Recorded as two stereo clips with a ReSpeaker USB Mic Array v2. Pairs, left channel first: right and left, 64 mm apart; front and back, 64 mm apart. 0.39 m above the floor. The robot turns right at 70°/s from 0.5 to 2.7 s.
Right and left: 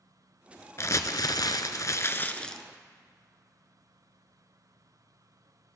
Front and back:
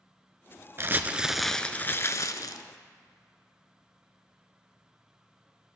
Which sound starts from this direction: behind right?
Crumpling, at 0.8 s.